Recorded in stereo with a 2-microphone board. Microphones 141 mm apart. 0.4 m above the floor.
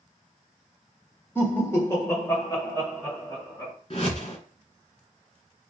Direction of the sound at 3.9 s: 40° left (ahead or behind).